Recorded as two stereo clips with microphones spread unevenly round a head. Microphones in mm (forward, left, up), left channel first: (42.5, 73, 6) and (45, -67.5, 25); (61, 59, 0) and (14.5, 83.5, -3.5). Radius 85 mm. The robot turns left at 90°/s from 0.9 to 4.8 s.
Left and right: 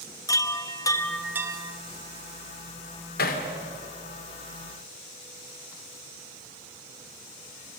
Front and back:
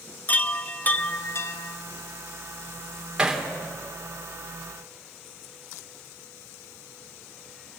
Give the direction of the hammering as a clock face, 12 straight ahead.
9 o'clock.